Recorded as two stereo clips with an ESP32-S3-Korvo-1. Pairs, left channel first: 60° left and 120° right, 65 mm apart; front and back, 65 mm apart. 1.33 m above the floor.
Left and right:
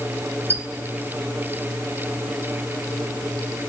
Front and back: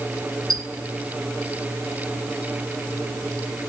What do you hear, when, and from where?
0.5 s a squeak: 170° right, 1.3 m